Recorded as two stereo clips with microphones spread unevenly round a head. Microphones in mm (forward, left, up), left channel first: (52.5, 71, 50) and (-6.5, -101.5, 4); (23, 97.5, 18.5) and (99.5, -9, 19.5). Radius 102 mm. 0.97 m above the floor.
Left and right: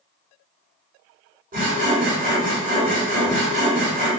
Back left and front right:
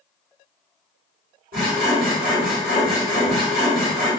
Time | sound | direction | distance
1.5 | sawing | 65° right | 1.8 m